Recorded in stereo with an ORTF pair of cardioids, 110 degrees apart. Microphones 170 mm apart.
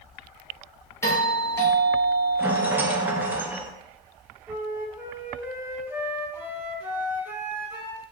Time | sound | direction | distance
1.0 | a doorbell | 15° left | 1.4 m
2.4 | a rattle | 10° right | 0.7 m
4.5 | a flute | 10° right | 1.2 m